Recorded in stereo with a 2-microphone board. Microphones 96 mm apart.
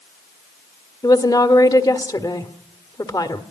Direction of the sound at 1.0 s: 45° left (ahead or behind).